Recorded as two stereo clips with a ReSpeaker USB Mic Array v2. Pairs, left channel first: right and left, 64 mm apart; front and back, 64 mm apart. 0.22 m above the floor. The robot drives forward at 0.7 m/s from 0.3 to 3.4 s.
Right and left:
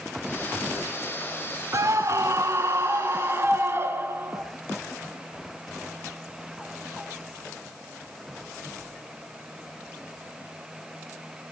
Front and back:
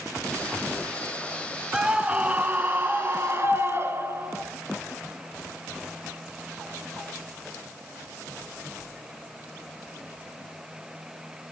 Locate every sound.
1.7 s a scream: 105° left, 1.9 m; by 4.4 s 135° left, 2.5 m